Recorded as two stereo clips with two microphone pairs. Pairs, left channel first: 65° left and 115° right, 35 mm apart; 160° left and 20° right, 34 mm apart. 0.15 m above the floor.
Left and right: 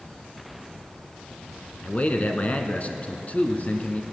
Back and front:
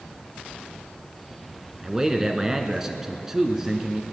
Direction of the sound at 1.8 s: 55° left.